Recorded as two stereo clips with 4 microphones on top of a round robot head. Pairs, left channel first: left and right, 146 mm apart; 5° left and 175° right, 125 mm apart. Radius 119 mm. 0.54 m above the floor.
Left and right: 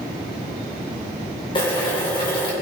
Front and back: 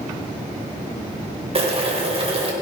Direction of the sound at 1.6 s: 150° left.